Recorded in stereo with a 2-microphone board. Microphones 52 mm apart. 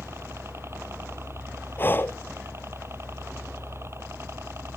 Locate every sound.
0.0 s a helicopter: 50° right (ahead or behind)
1.8 s breathing: 40° left (ahead or behind)